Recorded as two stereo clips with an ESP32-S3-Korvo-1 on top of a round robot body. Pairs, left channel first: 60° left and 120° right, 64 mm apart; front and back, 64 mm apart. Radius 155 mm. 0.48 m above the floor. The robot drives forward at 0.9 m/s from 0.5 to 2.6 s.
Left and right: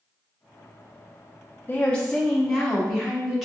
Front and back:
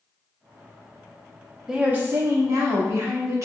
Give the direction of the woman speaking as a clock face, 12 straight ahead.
8 o'clock.